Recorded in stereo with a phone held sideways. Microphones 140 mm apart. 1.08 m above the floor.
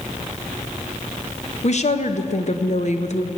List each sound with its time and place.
1.6 s a woman speaking: 55° left (ahead or behind), 0.9 m